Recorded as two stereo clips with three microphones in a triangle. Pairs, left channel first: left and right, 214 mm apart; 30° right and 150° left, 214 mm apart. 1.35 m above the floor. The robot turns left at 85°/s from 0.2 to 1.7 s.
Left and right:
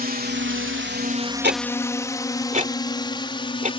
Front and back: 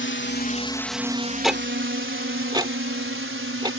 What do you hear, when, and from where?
0.0 s a drone: 45° right; by 3.8 s 155° left
1.4 s ticking: 120° right; by 3.7 s 140° right